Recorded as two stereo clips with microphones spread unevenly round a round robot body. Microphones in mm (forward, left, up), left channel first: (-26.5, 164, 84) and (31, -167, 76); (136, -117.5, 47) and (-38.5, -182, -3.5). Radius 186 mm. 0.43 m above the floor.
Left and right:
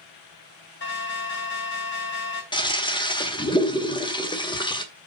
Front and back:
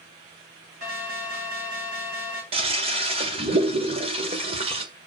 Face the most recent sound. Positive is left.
turn(degrees=175)